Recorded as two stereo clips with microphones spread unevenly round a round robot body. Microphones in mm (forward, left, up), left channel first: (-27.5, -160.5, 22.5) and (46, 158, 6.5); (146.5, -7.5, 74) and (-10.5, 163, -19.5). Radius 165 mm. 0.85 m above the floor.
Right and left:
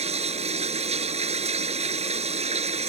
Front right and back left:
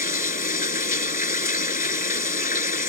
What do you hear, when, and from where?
0.0 s running water: 5° left